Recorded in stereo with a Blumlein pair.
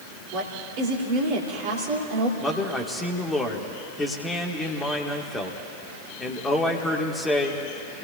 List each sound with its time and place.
0.3 s a woman speaking: 45° right, 3 m
2.4 s a man speaking: 10° left, 2 m